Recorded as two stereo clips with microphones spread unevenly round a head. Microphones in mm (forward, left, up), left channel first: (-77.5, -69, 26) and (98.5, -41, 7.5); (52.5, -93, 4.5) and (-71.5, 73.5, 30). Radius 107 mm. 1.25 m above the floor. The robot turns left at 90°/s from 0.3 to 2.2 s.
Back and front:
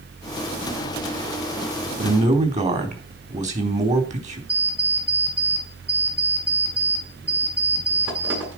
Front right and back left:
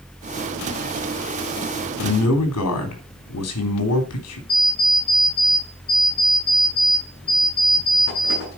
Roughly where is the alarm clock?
Ahead.